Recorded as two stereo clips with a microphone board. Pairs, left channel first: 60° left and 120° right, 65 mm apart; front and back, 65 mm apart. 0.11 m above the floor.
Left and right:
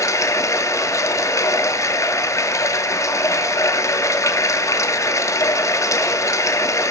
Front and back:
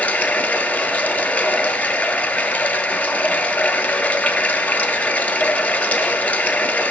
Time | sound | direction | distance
0.0 | running water | 60° left | 0.8 m